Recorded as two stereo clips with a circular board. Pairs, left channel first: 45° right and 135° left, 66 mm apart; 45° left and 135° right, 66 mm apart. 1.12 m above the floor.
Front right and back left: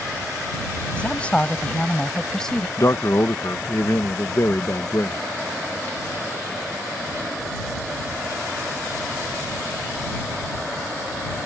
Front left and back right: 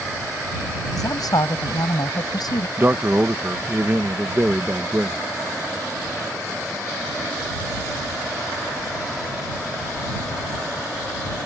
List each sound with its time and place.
1.0 s a woman speaking: 25° left; by 2.7 s 40° left
2.8 s a man speaking: 80° right